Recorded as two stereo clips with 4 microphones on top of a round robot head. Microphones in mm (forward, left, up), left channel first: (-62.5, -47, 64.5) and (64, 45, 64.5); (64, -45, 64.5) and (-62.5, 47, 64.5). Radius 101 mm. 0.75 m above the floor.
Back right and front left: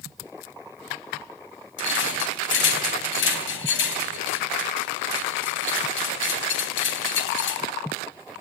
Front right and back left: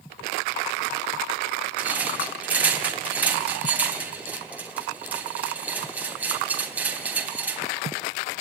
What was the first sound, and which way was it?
A rattle, 135° right.